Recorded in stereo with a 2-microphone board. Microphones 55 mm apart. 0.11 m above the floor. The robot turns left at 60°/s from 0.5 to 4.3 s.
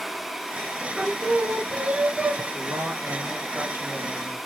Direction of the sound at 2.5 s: 70° right.